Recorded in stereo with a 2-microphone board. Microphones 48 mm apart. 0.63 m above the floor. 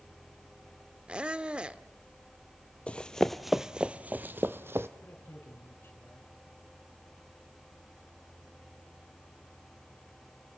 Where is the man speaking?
50° left (ahead or behind), 5.5 m.